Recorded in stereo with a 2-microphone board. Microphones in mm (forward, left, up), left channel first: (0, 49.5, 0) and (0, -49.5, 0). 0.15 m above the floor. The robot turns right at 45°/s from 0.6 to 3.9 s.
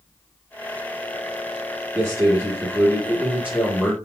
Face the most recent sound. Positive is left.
turn(degrees=-5)  # may be behind; listen again after turning